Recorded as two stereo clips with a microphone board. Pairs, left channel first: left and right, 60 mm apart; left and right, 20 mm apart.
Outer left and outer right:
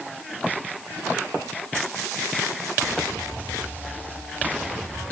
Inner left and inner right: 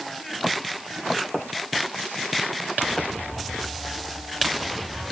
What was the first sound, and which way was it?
Only background noise.